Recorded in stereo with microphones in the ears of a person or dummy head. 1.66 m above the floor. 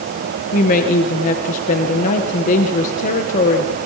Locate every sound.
0.5 s a woman speaking: 50° left (ahead or behind), 1.8 m